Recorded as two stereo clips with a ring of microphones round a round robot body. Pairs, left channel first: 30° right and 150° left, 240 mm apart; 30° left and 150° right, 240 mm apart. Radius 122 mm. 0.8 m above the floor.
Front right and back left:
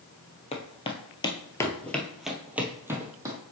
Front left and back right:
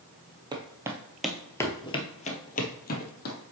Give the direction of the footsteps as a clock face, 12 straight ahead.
3 o'clock.